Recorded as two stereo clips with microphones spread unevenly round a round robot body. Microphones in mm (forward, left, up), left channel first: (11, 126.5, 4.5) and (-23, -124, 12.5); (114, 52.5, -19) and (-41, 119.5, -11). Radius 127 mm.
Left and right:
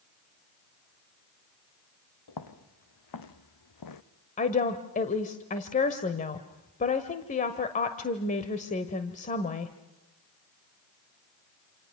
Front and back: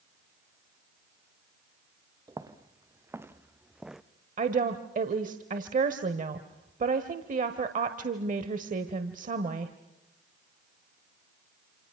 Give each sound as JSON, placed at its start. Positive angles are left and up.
{"t": 2.3, "sound": "footsteps", "azimuth_deg": 90, "distance_m": 2.5}
{"t": 4.4, "sound": "a woman speaking", "azimuth_deg": 135, "distance_m": 1.3}